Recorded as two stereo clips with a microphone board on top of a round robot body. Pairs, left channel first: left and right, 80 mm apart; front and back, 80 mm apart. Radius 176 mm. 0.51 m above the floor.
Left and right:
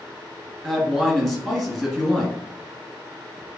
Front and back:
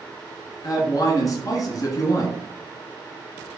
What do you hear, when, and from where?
0.6 s a man speaking: 5° left, 1.5 m